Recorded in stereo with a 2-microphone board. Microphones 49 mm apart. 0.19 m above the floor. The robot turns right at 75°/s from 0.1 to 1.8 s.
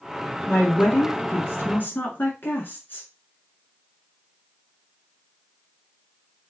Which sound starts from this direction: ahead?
A woman speaking, at 0.5 s.